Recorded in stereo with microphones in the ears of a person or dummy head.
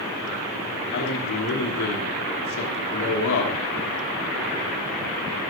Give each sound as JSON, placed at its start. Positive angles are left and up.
{"t": 0.9, "sound": "a man speaking", "side_deg": 65, "distance_m": 3.0}